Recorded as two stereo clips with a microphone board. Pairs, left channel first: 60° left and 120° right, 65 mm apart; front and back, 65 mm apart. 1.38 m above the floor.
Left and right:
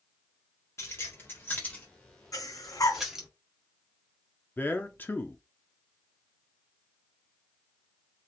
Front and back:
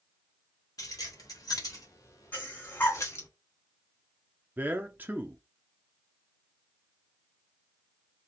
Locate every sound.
0.8 s keys jangling: 15° left, 1.8 m; by 3.3 s 40° right, 1.7 m
2.3 s breathing: 55° left, 2.5 m
4.6 s a man speaking: 120° left, 0.6 m